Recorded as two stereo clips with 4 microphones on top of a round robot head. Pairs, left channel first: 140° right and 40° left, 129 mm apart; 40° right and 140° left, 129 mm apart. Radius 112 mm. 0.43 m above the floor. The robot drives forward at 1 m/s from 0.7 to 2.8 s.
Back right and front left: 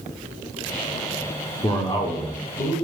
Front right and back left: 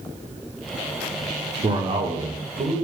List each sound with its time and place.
1.6 s a man speaking: 175° left, 1.1 m; by 2.7 s straight behind, 2.0 m